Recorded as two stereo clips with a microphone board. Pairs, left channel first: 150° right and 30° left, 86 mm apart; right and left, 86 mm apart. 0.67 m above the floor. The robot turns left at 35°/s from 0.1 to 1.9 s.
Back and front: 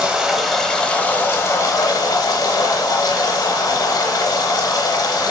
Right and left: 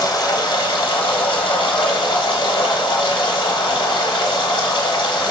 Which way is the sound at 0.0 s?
50° right.